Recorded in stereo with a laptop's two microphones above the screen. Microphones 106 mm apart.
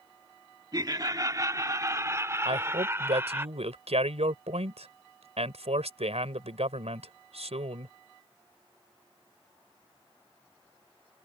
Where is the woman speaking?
80° right.